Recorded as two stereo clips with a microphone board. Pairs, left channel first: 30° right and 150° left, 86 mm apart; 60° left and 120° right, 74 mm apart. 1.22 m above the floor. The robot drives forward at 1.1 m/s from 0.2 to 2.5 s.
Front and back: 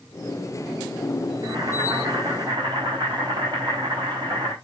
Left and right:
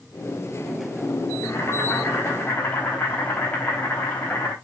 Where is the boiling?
110° left, 3.5 m; by 4.5 s 125° left, 4 m.